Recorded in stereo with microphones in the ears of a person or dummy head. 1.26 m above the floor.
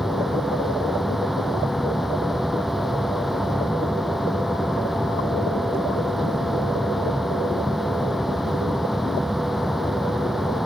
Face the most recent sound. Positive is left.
turn(degrees=5)  # may be behind; listen again after turning